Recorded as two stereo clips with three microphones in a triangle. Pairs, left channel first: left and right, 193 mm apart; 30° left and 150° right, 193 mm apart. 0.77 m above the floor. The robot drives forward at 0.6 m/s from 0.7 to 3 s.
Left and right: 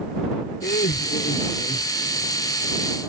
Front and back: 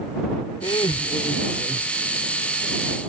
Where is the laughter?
85° left; by 2.1 s 110° left.